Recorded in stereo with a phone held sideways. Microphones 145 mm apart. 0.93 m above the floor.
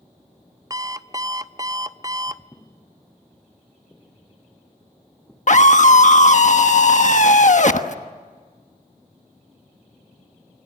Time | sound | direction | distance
0.7 | an alarm clock | 25° right (ahead or behind) | 0.6 m
2.5 | footsteps | 15° left (ahead or behind) | 2 m
5.5 | a scream | 55° left (ahead or behind) | 1.2 m